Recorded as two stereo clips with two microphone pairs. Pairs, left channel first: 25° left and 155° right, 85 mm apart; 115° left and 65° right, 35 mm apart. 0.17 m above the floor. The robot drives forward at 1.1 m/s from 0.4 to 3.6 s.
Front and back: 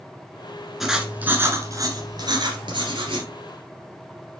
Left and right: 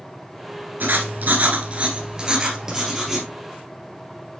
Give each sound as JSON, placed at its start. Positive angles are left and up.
{"t": 0.8, "sound": "writing", "azimuth_deg": -65, "distance_m": 1.6}